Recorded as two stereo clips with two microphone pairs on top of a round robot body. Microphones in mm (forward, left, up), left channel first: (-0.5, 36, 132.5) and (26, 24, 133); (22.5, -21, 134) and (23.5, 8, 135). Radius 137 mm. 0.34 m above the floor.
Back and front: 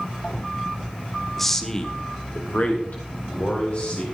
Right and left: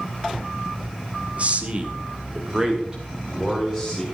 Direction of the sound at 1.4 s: 75° left.